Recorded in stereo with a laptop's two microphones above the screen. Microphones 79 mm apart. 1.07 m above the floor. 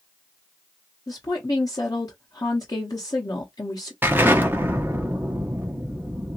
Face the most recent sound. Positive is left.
turn(degrees=-25)  # may be behind; listen again after turning